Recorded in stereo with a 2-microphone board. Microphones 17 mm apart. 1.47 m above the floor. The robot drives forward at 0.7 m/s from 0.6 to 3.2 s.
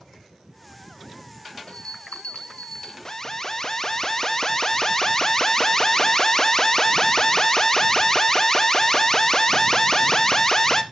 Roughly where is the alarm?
Left.